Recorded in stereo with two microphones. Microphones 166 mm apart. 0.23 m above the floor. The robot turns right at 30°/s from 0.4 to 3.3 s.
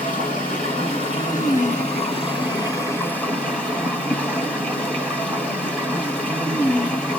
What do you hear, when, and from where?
0.0 s running water: 85° left, 2.0 m; by 7.2 s 175° left, 2.0 m